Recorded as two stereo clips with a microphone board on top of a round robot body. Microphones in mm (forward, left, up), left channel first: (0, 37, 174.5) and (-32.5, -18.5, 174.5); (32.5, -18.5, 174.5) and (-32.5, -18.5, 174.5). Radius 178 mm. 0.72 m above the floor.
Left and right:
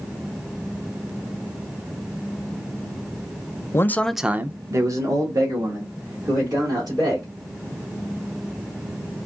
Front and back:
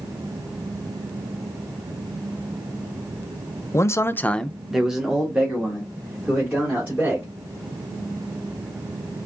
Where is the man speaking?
30° left, 0.6 m; by 7.3 s 115° right, 3 m.